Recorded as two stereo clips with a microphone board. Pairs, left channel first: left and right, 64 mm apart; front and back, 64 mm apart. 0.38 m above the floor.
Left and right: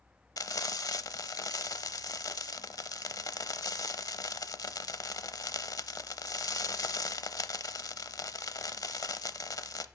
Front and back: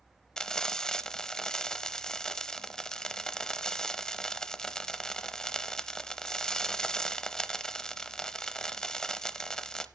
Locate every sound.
0.4 s frying: 80° left, 0.7 m